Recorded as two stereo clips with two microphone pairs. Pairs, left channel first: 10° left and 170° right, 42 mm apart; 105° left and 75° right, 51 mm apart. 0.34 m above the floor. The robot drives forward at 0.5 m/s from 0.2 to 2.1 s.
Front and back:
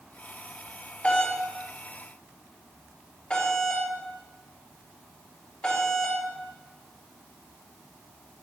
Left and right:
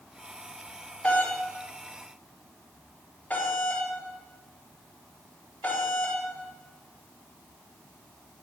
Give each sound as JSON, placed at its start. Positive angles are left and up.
{"t": 1.0, "sound": "a doorbell", "azimuth_deg": 55, "distance_m": 3.0}